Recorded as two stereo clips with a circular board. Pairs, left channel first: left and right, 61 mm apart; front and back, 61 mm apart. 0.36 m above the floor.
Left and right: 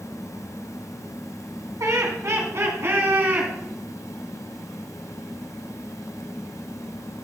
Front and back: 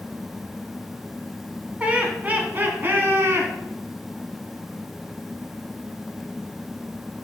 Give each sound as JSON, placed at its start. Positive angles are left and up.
{"t": 1.8, "sound": "laughter", "azimuth_deg": -115, "distance_m": 2.5}